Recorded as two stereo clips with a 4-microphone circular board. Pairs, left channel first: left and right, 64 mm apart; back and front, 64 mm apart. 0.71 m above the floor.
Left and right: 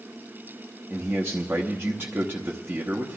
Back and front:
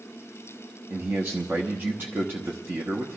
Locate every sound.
0.9 s a man speaking: 45° right, 0.8 m